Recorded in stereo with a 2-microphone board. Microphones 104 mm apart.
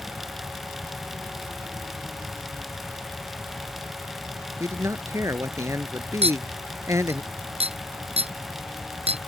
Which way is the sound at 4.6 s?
25° right (ahead or behind).